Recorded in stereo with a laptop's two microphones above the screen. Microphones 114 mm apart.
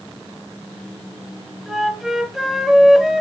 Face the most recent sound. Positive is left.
turn(degrees=0)  # may be behind; listen again after turning